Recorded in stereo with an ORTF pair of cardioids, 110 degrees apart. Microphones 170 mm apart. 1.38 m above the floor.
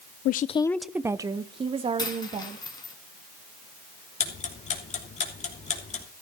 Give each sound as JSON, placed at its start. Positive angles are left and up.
{"t": 0.2, "sound": "a woman speaking", "azimuth_deg": 65, "distance_m": 0.6}
{"t": 2.0, "sound": "a dropped coin", "azimuth_deg": 25, "distance_m": 3.5}
{"t": 4.2, "sound": "ticking", "azimuth_deg": 40, "distance_m": 3.0}